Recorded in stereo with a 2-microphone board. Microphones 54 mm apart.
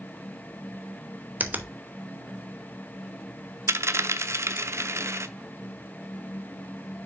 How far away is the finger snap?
About 0.8 m.